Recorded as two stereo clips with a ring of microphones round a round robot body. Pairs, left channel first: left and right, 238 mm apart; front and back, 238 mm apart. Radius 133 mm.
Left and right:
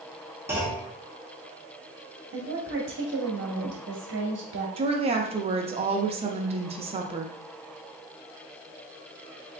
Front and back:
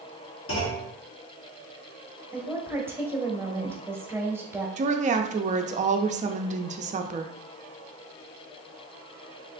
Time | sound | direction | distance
0.5 | a clunk | 10° right | 1.3 m
2.3 | a woman speaking | 100° right | 1.0 m
4.8 | a woman speaking | 140° right | 0.5 m